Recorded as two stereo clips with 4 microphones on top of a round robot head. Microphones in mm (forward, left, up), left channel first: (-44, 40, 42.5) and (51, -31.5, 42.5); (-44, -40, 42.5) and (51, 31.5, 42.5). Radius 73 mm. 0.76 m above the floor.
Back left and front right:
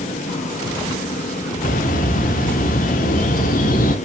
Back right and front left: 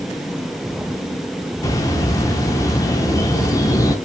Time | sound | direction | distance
1.6 | a bird | 155° left | 0.9 m